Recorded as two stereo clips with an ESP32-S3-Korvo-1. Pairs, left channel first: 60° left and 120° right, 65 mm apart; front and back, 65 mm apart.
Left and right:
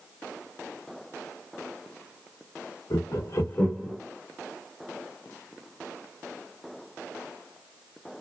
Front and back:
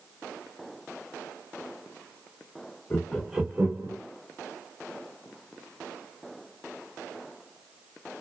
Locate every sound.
2.9 s laughter: 60° left, 0.9 m; by 4.0 s 145° left, 1.1 m